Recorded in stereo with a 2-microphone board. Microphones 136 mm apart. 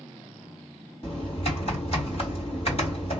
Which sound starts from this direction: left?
Typing on a keyboard, at 1.0 s.